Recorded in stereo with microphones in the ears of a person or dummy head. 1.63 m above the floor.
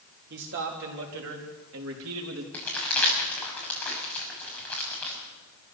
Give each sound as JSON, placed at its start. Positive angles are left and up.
{"t": 0.3, "sound": "a man speaking", "side_deg": -60, "distance_m": 3.5}
{"t": 2.5, "sound": "crumpling", "side_deg": 10, "distance_m": 6.5}